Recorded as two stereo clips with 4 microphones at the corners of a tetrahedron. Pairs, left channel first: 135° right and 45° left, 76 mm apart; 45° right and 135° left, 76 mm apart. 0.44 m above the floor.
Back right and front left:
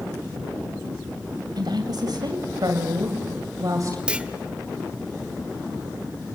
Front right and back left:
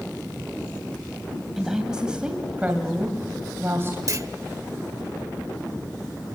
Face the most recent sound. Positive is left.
turn(degrees=120)